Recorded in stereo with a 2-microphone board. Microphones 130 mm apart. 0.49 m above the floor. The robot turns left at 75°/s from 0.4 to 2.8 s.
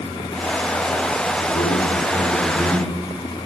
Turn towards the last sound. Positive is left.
turn(degrees=-25)